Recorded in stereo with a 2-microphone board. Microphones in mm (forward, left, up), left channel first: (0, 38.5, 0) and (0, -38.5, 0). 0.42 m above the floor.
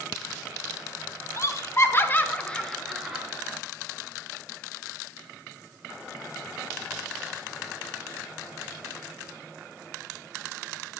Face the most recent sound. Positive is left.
turn(degrees=-5)  # may be behind; listen again after turning